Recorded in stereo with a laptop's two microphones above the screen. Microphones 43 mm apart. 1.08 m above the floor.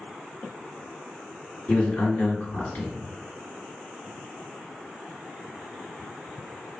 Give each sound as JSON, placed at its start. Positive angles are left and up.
{"t": 1.7, "sound": "a man speaking", "side_deg": 50, "distance_m": 1.8}